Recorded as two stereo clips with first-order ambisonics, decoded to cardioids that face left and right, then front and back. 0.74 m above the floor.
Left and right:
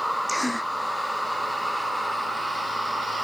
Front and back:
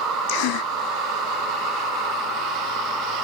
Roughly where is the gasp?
Ahead.